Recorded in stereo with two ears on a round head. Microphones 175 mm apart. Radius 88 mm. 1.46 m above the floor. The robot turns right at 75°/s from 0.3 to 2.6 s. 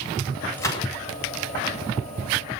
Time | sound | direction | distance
0.6 | a gunshot | 10° left (ahead or behind) | 7.5 m